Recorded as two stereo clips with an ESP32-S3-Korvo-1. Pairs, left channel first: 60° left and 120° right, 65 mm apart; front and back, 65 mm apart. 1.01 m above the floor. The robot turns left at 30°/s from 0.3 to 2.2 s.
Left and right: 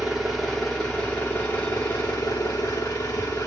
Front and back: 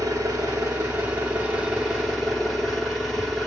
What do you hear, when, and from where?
0.0 s an engine running: 150° left, 1.2 m; by 3.5 s 95° left, 1.2 m